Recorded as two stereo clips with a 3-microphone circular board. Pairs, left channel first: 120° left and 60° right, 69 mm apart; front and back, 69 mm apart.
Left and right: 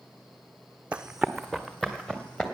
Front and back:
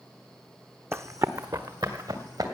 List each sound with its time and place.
0.9 s running footsteps: 130° right, 0.7 m; by 2.4 s 160° right, 2.5 m